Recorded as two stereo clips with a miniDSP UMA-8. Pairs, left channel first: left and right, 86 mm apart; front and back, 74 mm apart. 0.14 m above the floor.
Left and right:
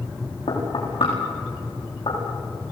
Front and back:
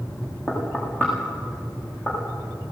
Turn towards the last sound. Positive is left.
turn(degrees=65)